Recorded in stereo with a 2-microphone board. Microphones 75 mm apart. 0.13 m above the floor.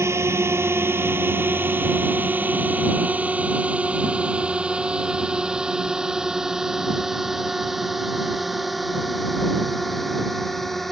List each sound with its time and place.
0.0 s a drone: 35° right (ahead or behind); by 10.9 s 5° left (ahead or behind)